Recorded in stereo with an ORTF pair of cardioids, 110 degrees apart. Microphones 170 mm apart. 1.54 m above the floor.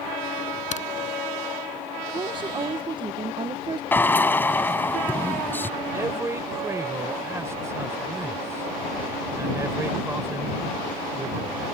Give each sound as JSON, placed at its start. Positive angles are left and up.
{"t": 0.7, "sound": "a crack", "azimuth_deg": 45}
{"t": 2.1, "sound": "a woman speaking", "azimuth_deg": -30}
{"t": 3.9, "sound": "a drill", "azimuth_deg": 10}
{"t": 5.9, "sound": "a man speaking", "azimuth_deg": -15}